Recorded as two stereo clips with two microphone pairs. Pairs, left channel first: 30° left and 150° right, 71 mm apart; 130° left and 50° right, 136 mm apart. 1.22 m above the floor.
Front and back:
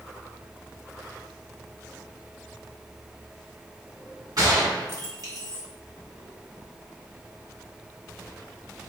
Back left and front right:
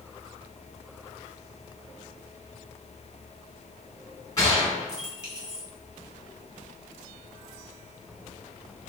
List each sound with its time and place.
4.4 s a gunshot: 165° right, 1.3 m